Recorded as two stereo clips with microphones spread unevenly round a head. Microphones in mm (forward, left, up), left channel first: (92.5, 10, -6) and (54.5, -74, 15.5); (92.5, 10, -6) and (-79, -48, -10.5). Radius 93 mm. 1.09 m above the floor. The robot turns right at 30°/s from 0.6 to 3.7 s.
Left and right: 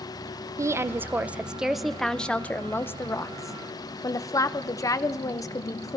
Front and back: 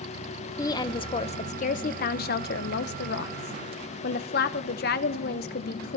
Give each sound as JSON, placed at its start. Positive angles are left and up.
{"t": 0.6, "sound": "a woman speaking", "azimuth_deg": -50, "distance_m": 0.8}